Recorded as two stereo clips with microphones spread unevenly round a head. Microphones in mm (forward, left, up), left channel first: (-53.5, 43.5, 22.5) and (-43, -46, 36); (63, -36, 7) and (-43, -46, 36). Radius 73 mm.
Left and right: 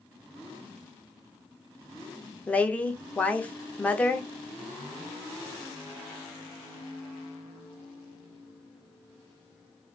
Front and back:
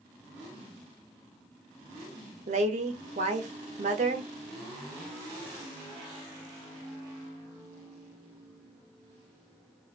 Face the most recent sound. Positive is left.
turn(degrees=165)